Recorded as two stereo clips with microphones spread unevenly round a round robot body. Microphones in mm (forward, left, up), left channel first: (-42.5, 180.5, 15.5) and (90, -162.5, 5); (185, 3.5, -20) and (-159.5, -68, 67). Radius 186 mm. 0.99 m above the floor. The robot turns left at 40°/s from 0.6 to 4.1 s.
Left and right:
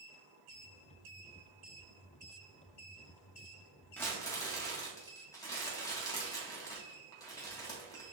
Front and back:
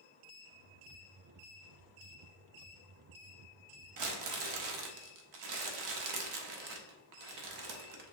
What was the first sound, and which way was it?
Crumpling, 165° right.